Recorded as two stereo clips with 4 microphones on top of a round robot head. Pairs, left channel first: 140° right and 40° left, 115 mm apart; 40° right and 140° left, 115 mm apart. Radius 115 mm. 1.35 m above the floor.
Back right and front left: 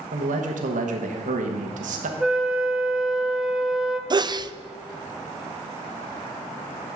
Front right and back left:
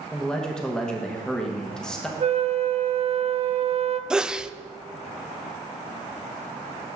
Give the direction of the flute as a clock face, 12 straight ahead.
8 o'clock.